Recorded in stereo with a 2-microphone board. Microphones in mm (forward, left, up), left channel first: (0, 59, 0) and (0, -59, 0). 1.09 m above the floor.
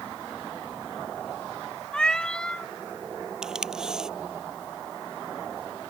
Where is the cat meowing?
10° left (ahead or behind).